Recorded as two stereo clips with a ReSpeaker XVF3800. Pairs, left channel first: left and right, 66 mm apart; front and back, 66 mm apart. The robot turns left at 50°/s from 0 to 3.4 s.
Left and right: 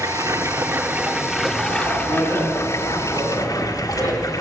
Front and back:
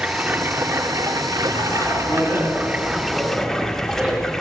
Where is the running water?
105° right, 1.8 m; by 4.4 s 85° left, 1.8 m.